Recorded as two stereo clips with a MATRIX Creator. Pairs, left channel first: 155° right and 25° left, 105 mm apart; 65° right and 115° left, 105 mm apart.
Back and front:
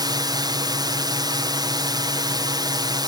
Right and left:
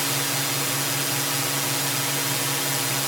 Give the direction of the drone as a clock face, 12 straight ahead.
11 o'clock.